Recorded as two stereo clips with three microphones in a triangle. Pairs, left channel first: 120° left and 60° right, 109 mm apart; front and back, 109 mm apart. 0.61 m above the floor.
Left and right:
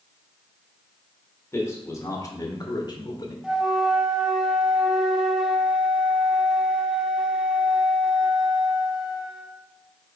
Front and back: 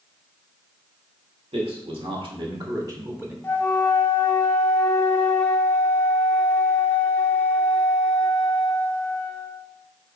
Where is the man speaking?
Straight behind, 2 m; by 3.3 s 115° left, 1.2 m.